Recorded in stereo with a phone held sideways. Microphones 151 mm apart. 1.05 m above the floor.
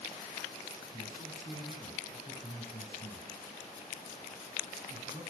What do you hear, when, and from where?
0.9 s a man speaking: 55° left (ahead or behind), 2.5 m